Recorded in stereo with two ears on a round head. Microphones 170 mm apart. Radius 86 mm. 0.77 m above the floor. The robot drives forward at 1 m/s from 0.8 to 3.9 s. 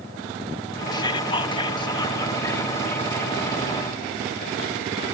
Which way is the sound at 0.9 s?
20° left (ahead or behind).